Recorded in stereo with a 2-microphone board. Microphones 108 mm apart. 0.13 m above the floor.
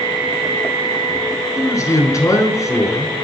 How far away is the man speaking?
About 1.5 m.